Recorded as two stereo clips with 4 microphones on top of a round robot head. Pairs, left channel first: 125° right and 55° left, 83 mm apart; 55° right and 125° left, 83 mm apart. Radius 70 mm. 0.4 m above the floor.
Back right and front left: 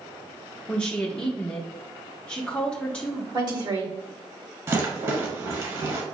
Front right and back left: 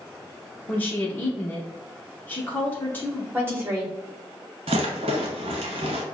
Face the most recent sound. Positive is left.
turn(degrees=110)